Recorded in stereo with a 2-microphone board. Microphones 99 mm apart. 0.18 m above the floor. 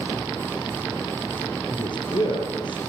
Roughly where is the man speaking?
Left.